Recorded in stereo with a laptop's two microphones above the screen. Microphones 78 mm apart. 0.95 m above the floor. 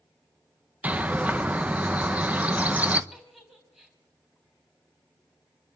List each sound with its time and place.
0.8 s a bird: 20° right (ahead or behind), 0.9 m
3.1 s a giggle: 10° right (ahead or behind), 3 m